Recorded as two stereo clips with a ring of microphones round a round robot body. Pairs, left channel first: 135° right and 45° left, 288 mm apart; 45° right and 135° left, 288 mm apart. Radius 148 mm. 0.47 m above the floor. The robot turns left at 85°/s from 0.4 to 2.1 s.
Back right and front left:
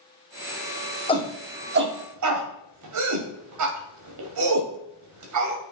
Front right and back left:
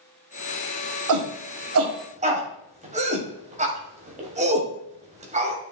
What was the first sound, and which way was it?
A shout, 155° left.